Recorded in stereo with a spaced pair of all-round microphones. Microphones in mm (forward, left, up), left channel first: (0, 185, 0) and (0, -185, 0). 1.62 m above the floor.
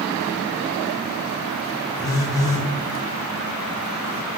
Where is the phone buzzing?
10° left (ahead or behind), 0.9 m.